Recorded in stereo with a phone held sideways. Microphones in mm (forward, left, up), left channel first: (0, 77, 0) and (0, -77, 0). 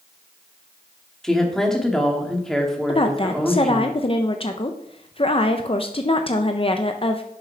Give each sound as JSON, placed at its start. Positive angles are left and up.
{"t": 1.2, "sound": "a woman speaking", "side_deg": 5, "distance_m": 1.9}
{"t": 2.9, "sound": "a woman speaking", "side_deg": 35, "distance_m": 0.6}